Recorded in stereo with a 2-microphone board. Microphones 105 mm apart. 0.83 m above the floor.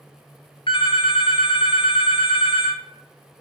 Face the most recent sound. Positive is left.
turn(degrees=55)  # may be behind; listen again after turning